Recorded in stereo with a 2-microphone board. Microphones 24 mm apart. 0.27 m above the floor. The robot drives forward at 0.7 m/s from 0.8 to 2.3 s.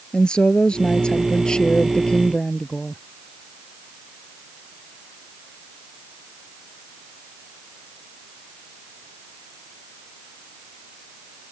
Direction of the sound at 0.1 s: 35° left (ahead or behind).